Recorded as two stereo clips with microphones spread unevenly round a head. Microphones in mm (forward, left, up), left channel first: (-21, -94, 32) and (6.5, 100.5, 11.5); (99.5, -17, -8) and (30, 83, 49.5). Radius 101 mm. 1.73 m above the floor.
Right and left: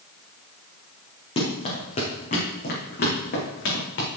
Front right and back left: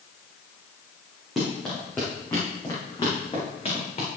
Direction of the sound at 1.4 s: 155° right.